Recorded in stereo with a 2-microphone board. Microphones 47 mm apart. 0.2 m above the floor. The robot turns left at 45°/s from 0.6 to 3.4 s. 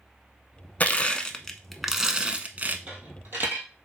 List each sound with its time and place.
0.8 s crushing: 40° left, 0.5 m; by 2.8 s 45° right, 0.5 m
2.9 s a dropped coin: 30° right (ahead or behind), 1.7 m; by 3.7 s 55° right (ahead or behind), 1.7 m